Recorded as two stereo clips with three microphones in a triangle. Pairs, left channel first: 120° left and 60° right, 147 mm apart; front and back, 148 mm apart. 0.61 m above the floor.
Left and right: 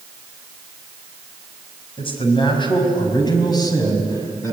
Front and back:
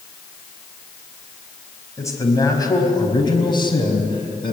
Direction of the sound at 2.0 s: 70° left.